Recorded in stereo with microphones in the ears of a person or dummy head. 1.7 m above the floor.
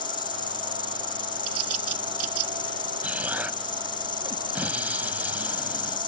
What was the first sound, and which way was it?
An insect, 25° left (ahead or behind).